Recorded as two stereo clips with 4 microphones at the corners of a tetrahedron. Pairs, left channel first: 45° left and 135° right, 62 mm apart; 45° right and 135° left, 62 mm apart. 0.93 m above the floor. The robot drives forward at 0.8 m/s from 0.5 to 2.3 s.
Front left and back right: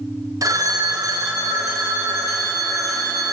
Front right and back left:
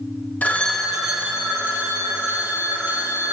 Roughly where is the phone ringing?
Right.